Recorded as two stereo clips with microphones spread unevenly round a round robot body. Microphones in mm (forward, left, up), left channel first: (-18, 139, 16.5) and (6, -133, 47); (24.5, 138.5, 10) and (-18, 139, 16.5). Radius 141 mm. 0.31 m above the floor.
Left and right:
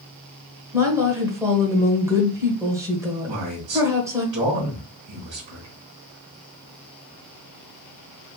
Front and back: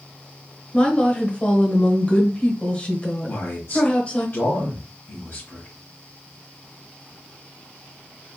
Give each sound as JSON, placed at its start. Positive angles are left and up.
{"t": 0.7, "sound": "a woman speaking", "azimuth_deg": -5, "distance_m": 1.2}
{"t": 3.3, "sound": "a man speaking", "azimuth_deg": -40, "distance_m": 1.5}